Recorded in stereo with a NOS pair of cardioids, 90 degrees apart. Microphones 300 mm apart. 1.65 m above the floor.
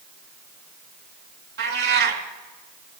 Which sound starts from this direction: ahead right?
A cat meowing, at 1.6 s.